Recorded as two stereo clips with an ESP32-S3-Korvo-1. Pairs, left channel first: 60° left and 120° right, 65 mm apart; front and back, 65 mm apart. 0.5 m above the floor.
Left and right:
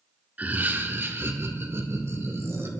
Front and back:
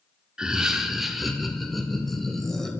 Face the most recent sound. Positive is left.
turn(degrees=-85)